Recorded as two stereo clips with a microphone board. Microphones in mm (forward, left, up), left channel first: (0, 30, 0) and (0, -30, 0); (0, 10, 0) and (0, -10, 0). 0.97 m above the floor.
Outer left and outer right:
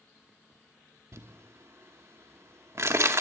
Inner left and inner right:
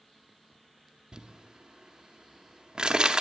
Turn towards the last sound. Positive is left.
turn(degrees=-50)  # may be behind; listen again after turning